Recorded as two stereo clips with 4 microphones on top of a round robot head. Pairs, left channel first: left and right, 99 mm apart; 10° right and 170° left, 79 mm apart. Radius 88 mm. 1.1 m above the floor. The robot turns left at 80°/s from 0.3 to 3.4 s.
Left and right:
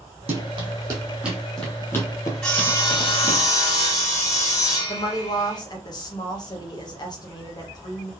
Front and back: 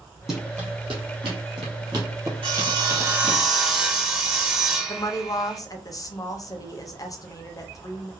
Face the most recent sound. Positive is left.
turn(degrees=35)